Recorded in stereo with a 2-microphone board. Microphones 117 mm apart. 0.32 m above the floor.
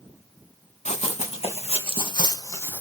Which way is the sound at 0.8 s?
70° left (ahead or behind).